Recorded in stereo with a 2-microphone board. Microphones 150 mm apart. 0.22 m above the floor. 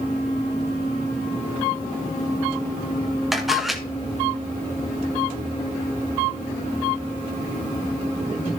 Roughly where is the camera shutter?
Centre.